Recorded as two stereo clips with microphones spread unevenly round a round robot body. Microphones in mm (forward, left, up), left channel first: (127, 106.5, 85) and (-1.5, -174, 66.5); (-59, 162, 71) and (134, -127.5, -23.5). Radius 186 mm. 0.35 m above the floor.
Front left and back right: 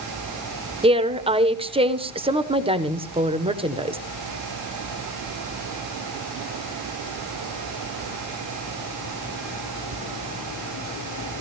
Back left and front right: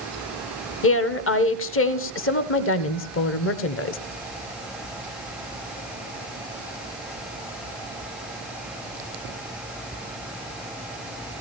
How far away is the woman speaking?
About 1.0 m.